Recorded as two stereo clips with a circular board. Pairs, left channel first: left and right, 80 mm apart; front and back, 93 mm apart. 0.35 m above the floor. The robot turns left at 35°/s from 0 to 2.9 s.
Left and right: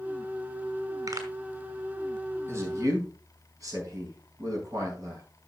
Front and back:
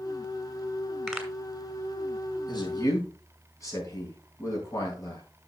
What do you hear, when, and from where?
1.1 s a pop: 85° right, 2 m; by 1.3 s 90° right, 2 m
2.5 s a man speaking: 35° right, 3.5 m; by 5.2 s 50° right, 3.5 m